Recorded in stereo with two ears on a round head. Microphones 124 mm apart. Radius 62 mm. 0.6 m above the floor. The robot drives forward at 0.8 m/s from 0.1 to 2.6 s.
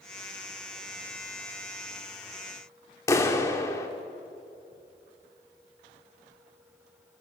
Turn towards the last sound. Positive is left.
turn(degrees=20)  # may be behind; listen again after turning